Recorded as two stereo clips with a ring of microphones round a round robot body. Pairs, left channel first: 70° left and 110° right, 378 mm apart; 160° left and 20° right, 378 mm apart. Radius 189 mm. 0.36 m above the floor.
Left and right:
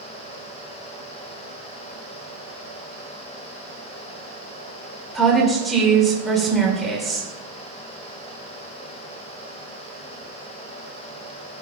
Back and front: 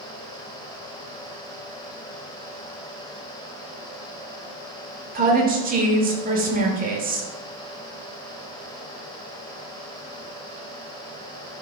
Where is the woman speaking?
20° right, 1.1 m.